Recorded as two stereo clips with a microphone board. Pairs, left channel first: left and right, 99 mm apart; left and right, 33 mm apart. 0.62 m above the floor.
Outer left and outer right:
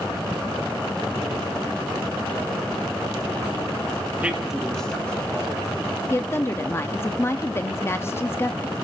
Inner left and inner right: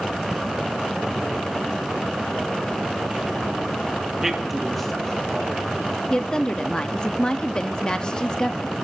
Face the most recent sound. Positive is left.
turn(degrees=25)  # may be behind; listen again after turning